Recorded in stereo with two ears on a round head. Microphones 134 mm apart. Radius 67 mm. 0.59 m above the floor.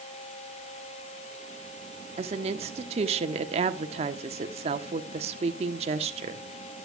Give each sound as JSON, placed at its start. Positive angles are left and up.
{"t": 2.2, "sound": "a woman speaking", "side_deg": -45, "distance_m": 1.3}